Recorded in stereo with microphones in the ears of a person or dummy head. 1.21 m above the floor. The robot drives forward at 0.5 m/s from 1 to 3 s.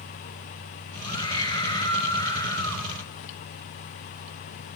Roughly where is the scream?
Left.